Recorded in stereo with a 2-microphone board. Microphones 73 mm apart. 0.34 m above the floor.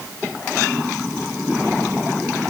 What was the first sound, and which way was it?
Only background noise.